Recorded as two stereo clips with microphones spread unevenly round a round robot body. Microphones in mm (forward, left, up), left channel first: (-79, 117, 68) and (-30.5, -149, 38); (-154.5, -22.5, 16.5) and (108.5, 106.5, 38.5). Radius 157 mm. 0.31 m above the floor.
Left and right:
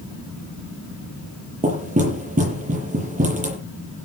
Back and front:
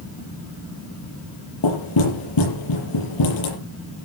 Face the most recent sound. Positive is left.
turn(degrees=-145)